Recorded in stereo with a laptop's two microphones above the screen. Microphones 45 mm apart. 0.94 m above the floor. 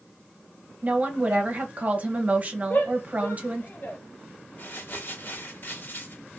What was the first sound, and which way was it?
A woman speaking, 35° right (ahead or behind).